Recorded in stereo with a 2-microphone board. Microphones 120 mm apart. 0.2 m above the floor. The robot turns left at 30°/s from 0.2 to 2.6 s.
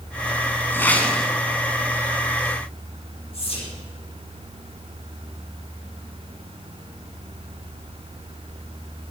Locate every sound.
0.7 s a whoosh: 20° left (ahead or behind), 1.2 m; by 1.3 s 5° left (ahead or behind), 1.2 m
3.3 s whispering: 55° left (ahead or behind), 4.5 m